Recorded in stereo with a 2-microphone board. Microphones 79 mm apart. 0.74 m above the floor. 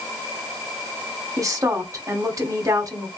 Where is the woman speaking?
45° right (ahead or behind), 1.2 m.